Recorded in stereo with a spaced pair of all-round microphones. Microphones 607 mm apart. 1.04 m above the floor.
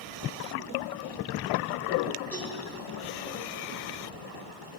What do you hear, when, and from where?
2.3 s a cowbell: centre (ahead or behind), 7 m